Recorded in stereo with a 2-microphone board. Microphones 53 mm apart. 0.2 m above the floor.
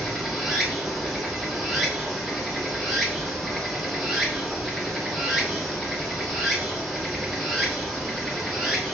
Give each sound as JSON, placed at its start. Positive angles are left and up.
{"t": 0.0, "sound": "running water", "side_deg": 0, "distance_m": 1.2}